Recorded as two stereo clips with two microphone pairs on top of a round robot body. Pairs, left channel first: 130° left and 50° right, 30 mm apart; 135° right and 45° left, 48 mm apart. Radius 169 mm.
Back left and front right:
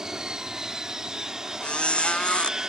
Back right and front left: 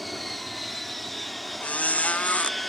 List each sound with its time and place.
0.0 s an aircraft: 60° right
1.6 s a squeak: straight behind